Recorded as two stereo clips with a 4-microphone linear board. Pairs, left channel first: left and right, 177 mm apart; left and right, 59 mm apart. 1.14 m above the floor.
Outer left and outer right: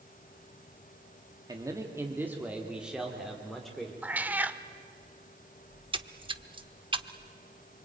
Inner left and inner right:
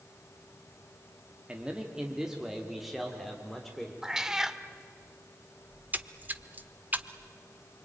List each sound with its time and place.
1.5 s a man speaking: 20° right (ahead or behind), 2 m; by 3.9 s 5° left (ahead or behind), 3.5 m
4.0 s a cat meowing: 10° right (ahead or behind), 0.9 m
5.7 s a splash: 30° right (ahead or behind), 0.8 m